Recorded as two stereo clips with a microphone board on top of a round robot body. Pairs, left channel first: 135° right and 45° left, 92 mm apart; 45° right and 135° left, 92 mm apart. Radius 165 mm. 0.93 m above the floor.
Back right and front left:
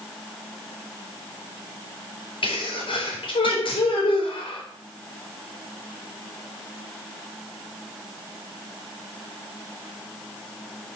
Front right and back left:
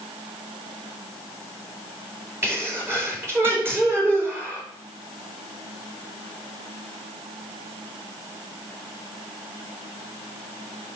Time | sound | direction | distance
2.4 | a sneeze | 160° right | 4 m